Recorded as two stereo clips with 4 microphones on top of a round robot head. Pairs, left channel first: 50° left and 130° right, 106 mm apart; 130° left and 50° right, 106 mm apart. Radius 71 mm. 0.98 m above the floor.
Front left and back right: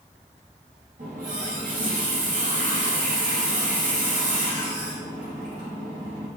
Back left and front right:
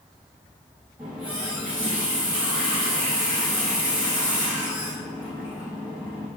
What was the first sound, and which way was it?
A running tap, 125° right.